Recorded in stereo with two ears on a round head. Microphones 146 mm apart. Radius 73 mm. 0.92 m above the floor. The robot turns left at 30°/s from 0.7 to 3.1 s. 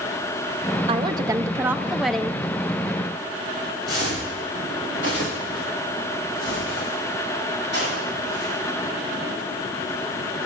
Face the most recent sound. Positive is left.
turn(degrees=75)  # may be behind; listen again after turning